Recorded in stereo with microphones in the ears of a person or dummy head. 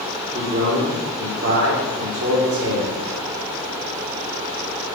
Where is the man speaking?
50° right (ahead or behind), 1.2 m.